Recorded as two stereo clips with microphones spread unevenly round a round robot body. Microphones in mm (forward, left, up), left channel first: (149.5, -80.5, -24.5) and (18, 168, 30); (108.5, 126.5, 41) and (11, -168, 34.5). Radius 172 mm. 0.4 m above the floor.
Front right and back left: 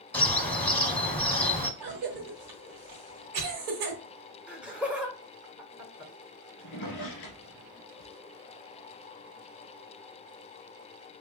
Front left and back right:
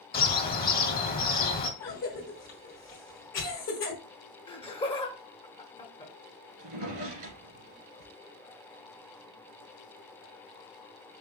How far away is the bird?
About 1.0 m.